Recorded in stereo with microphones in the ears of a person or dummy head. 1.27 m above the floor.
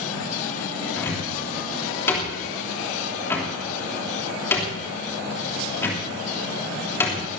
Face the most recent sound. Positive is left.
turn(degrees=15)  # may be behind; listen again after turning